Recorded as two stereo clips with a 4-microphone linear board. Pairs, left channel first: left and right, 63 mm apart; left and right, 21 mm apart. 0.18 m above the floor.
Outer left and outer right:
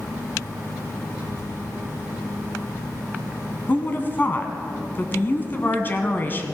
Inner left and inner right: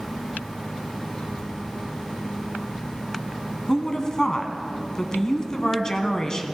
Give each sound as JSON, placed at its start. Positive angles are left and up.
{"t": 1.1, "sound": "a child speaking", "side_deg": 70, "distance_m": 4.0}
{"t": 3.7, "sound": "a woman speaking", "side_deg": 30, "distance_m": 1.4}